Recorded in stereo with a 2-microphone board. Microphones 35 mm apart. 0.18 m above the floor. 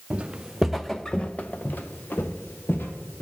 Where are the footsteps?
30° right (ahead or behind), 0.8 m; by 3.2 s 80° left, 1.6 m.